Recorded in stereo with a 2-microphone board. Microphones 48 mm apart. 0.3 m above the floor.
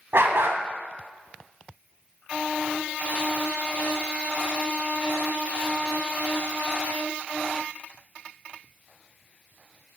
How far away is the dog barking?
About 0.8 m.